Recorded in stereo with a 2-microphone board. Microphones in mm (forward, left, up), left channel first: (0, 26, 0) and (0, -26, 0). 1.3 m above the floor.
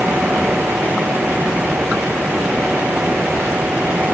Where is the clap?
No clap in this recording.